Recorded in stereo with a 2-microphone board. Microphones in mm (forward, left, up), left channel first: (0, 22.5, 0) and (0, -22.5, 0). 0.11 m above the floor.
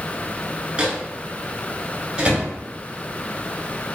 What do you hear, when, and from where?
0.8 s a microwave: 20° right (ahead or behind), 1.1 m